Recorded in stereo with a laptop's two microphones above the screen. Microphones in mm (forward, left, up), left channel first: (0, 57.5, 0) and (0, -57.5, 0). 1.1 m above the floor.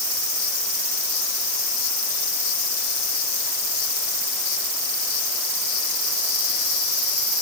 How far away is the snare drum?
I don't hear a snare drum.